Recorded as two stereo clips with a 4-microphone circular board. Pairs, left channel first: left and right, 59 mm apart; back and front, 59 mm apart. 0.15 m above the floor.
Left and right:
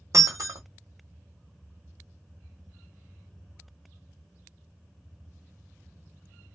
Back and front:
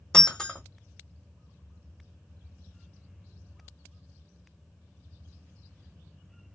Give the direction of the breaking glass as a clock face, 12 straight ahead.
3 o'clock.